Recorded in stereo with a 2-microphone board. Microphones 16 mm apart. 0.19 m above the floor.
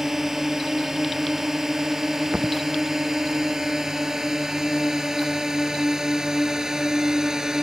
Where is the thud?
80° right.